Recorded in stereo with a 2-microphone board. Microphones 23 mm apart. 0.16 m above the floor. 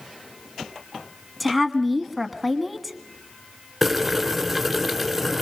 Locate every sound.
1.4 s a woman speaking: centre (ahead or behind), 1.4 m
3.8 s boiling: centre (ahead or behind), 2 m